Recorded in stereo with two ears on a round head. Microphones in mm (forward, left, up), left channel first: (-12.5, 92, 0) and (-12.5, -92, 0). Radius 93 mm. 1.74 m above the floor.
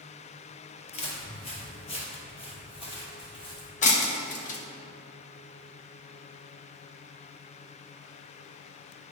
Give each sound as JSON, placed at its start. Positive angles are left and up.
{"t": 0.9, "sound": "footsteps", "side_deg": 30, "distance_m": 2.0}
{"t": 3.8, "sound": "breaking glass", "side_deg": 35, "distance_m": 1.0}